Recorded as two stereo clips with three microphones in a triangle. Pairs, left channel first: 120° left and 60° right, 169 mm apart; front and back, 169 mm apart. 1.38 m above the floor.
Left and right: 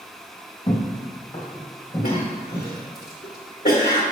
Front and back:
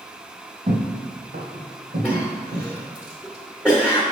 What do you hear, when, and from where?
0.7 s footsteps: 175° left, 2 m; by 2.7 s 165° right, 3 m
2.0 s a cough: 85° left, 1.0 m